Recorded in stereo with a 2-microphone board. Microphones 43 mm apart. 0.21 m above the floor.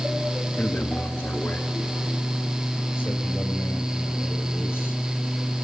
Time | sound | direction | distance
0.6 | a man speaking | 45° left (ahead or behind) | 2.5 m